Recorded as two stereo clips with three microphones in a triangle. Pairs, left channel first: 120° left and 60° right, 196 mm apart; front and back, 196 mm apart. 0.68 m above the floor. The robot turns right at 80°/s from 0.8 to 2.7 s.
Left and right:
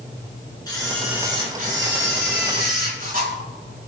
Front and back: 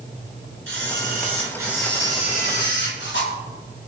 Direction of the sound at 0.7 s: 170° right.